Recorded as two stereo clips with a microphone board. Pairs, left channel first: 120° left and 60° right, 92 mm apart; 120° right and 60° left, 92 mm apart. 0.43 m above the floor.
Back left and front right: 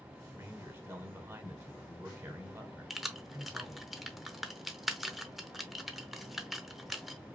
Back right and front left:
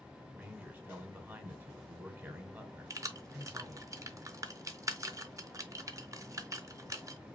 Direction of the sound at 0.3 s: Straight ahead.